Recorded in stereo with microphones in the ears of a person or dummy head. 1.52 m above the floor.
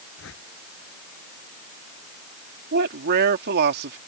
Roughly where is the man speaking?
Right.